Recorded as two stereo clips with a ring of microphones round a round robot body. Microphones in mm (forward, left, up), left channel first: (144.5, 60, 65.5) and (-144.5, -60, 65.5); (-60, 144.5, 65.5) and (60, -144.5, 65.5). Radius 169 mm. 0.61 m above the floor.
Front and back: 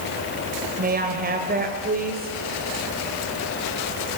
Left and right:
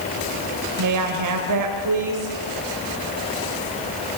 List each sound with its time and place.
0.8 s a woman speaking: 95° right, 2.5 m